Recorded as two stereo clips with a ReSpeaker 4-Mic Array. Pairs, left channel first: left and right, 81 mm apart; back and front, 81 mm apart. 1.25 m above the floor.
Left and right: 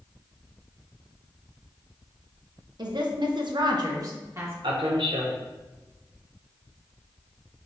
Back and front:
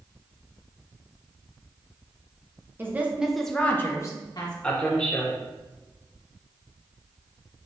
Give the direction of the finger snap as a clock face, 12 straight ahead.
I don't hear a finger snap.